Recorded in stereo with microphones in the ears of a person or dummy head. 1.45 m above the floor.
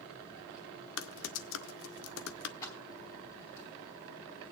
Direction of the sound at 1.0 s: 75° left (ahead or behind).